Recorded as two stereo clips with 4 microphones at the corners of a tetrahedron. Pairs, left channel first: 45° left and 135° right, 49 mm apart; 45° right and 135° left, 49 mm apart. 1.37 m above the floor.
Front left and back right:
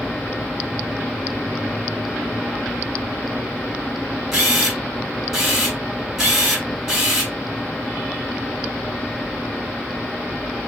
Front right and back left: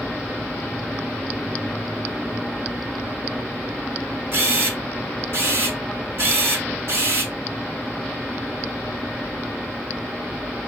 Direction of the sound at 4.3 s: 145° left.